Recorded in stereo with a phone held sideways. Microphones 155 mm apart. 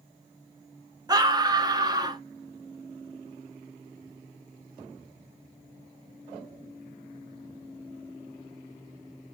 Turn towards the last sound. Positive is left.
turn(degrees=-25)  # may be behind; listen again after turning